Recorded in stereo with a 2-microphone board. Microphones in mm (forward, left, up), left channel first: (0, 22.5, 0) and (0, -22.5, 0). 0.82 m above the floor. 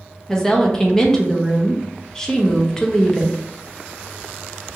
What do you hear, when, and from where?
0.3 s a woman speaking: 15° left (ahead or behind), 0.5 m